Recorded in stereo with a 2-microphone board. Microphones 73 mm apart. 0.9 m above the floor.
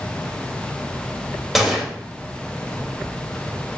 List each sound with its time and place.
1.6 s a gunshot: centre (ahead or behind), 1.9 m